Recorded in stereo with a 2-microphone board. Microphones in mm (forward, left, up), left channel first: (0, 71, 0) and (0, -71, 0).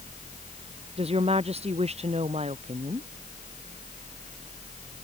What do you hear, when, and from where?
1.0 s a woman speaking: 45° right (ahead or behind); by 3.1 s 50° right (ahead or behind)